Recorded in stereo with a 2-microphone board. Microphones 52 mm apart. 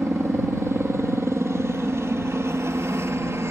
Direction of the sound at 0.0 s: 60° right (ahead or behind).